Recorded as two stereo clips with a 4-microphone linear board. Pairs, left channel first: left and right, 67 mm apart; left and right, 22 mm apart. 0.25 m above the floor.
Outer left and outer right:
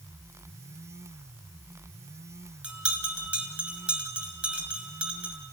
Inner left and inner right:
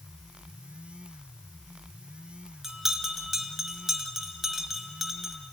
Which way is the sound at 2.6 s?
20° right (ahead or behind).